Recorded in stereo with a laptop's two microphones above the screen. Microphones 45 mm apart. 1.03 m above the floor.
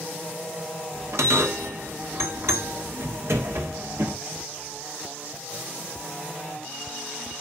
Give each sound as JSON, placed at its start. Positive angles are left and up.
{"t": 0.9, "sound": "a bell", "side_deg": -75, "distance_m": 1.4}